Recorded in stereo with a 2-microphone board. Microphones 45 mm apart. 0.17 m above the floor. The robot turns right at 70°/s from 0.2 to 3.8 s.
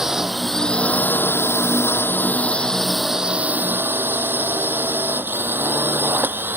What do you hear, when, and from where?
0.0 s a drone: 15° right; by 6.6 s 120° right